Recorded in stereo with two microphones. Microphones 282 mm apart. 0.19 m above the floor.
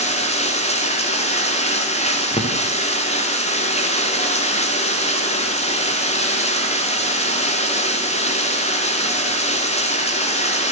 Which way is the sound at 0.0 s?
25° left (ahead or behind).